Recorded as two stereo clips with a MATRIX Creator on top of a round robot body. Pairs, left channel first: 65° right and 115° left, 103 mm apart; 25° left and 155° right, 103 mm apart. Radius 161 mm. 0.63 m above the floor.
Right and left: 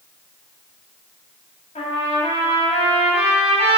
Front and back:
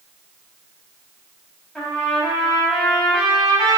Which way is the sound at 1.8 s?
65° right.